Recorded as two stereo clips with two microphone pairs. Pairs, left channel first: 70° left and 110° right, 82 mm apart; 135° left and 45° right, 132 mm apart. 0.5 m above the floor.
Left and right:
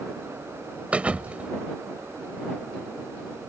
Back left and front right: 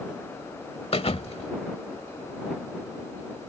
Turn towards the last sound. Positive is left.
turn(degrees=175)